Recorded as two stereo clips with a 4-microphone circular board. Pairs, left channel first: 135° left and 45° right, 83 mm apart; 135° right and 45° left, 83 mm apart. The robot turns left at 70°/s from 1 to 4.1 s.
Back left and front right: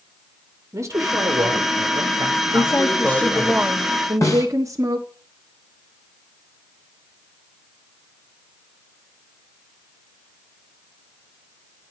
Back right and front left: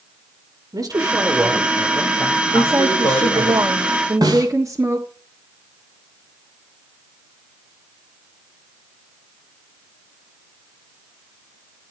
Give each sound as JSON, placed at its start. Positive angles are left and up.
{"t": 0.7, "sound": "a man speaking", "azimuth_deg": 5, "distance_m": 2.0}
{"t": 2.5, "sound": "a woman speaking", "azimuth_deg": 105, "distance_m": 1.5}
{"t": 4.2, "sound": "a snare drum", "azimuth_deg": 85, "distance_m": 4.0}